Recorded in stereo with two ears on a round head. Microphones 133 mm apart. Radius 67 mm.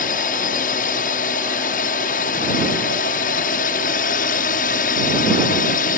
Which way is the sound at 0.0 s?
60° left (ahead or behind).